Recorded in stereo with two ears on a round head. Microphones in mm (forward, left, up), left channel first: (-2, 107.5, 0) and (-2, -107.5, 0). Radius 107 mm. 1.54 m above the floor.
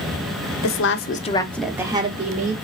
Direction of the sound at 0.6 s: 60° left (ahead or behind).